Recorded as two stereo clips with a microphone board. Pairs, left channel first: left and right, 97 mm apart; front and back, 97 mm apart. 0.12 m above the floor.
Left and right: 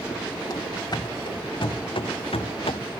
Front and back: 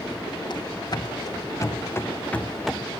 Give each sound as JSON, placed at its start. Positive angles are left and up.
{"t": 0.5, "sound": "running footsteps", "azimuth_deg": 40, "distance_m": 1.6}